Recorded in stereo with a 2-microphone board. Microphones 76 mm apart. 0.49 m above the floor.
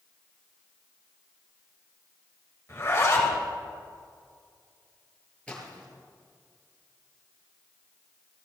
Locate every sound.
2.7 s a zipper: 35° left (ahead or behind), 2.5 m
5.5 s a splash: 15° left (ahead or behind), 4 m